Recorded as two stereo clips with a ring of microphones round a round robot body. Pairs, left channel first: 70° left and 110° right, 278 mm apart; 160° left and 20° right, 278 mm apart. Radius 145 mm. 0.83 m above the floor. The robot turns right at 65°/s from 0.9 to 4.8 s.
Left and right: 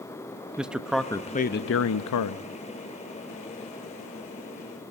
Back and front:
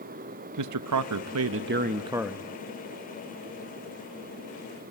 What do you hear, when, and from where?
0.6 s a man speaking: 25° right, 0.8 m; by 2.4 s 75° left, 0.8 m